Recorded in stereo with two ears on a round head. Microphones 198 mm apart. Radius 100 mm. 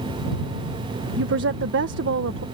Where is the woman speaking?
60° right (ahead or behind).